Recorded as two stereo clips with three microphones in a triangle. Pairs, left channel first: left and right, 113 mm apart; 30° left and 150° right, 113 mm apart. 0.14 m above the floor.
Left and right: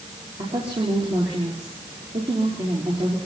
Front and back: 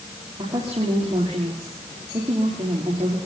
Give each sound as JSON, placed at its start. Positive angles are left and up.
{"t": 0.4, "sound": "a woman speaking", "azimuth_deg": -110, "distance_m": 5.0}